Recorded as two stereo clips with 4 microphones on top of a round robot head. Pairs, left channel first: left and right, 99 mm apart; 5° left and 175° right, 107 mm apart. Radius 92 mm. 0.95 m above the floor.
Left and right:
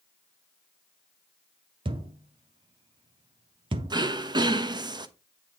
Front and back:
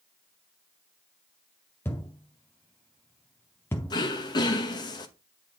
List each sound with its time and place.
1.9 s a thud: 75° right, 0.6 m
3.9 s throat clearing: 50° right, 0.9 m